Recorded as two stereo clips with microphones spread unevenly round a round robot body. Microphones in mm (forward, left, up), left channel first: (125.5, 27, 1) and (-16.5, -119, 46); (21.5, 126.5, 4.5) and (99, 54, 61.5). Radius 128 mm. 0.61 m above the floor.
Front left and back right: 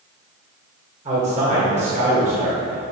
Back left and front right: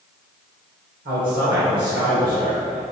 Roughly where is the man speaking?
Right.